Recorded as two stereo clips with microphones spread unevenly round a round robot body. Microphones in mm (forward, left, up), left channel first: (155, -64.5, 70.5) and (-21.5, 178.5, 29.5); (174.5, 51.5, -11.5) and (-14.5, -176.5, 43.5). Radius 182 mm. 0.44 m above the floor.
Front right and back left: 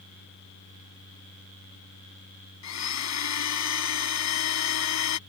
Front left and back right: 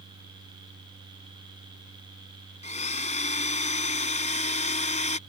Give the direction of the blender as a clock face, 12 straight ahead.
1 o'clock.